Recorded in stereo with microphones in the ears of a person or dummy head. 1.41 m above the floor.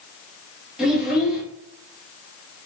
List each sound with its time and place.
0.8 s a child speaking: 5° right (ahead or behind), 1.4 m